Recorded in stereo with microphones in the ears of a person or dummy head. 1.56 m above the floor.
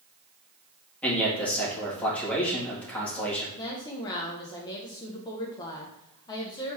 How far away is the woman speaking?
About 0.9 m.